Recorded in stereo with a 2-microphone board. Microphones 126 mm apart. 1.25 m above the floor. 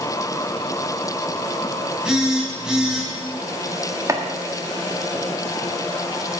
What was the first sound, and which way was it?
A phone buzzing, 5° right (ahead or behind).